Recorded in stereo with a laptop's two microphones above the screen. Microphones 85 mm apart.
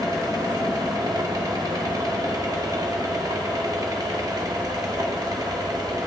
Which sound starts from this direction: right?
A fan, at 0.0 s.